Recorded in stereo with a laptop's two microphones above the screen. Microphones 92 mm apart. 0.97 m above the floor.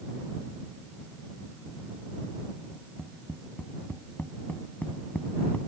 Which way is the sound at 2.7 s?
15° left (ahead or behind).